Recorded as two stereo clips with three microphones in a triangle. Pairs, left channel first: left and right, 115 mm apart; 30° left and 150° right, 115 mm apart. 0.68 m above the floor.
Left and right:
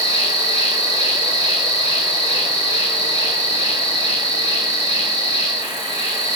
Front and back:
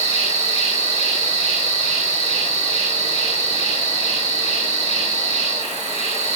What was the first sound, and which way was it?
An insect, 140° right.